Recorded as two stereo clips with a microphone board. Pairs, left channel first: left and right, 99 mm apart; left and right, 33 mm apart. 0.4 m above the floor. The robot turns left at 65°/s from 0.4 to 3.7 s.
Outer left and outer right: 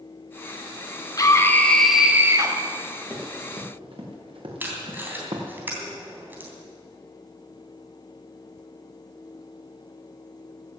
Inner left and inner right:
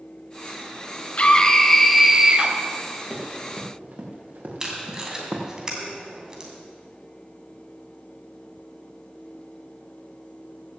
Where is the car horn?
I don't hear a car horn.